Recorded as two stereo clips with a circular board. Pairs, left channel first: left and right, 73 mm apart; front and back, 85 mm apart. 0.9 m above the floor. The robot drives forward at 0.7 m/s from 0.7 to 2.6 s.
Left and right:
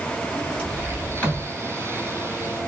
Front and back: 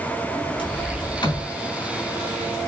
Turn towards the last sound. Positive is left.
turn(degrees=30)